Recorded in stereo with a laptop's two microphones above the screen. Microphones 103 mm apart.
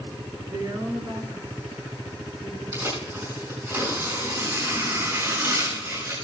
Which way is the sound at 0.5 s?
40° right (ahead or behind).